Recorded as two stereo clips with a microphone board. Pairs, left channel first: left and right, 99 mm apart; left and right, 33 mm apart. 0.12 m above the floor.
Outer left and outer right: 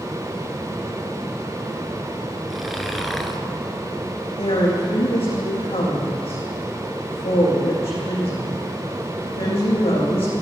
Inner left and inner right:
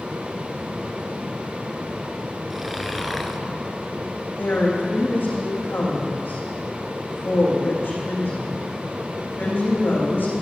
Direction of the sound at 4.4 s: 80° left.